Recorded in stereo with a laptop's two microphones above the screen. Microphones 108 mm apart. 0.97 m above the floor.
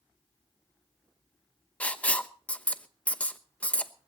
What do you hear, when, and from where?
1.8 s writing: 10° left (ahead or behind), 0.8 m